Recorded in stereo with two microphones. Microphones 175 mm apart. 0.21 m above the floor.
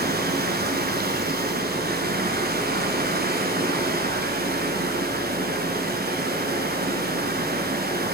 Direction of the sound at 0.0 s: 65° right (ahead or behind).